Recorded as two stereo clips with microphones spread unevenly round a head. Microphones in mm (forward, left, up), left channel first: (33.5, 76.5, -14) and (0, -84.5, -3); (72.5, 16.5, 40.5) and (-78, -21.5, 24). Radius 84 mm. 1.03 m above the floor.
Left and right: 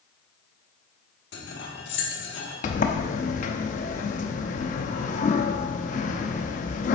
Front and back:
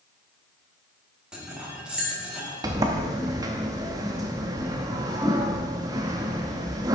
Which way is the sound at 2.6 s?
125° left.